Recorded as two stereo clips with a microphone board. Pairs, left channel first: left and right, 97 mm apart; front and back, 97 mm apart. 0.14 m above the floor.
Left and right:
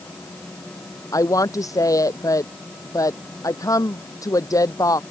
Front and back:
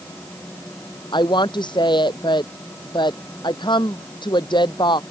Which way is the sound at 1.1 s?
35° left.